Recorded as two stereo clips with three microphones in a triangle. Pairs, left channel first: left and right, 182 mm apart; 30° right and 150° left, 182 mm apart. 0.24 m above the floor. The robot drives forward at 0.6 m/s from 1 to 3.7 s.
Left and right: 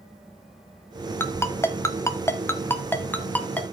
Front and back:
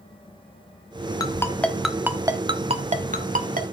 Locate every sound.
1.2 s a ringtone: 20° left, 0.9 m; by 3.6 s 170° left, 1.2 m